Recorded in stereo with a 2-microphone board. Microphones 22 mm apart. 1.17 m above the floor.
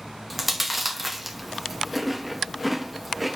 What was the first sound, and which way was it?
Chewing, centre (ahead or behind).